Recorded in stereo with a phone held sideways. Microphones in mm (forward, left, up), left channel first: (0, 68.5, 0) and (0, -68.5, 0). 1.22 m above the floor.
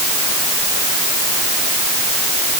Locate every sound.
Only background noise.